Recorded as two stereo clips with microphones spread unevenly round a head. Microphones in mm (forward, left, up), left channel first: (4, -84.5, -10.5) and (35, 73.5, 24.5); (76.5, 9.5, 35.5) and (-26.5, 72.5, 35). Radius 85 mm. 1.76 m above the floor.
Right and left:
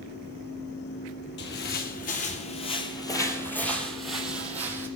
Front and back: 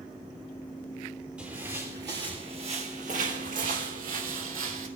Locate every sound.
1.4 s footsteps: 130° right, 3 m; by 4.9 s 150° left, 4 m